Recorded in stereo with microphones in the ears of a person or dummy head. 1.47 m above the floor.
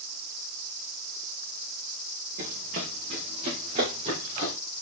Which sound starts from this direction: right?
Running footsteps, at 2.4 s.